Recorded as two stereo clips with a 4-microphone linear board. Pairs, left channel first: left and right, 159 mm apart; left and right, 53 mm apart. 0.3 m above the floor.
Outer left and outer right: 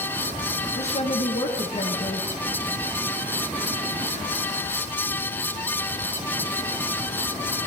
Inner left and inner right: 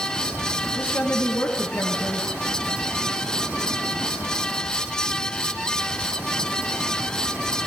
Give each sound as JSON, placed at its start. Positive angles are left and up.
{"t": 0.8, "sound": "a woman speaking", "side_deg": 50, "distance_m": 4.5}